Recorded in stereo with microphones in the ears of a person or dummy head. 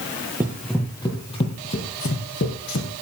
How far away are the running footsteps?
About 1.8 m.